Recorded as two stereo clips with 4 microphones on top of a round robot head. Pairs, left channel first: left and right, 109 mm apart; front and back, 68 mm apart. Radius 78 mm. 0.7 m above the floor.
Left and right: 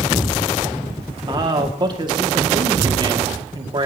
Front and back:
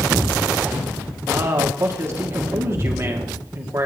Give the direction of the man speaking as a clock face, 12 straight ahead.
4 o'clock.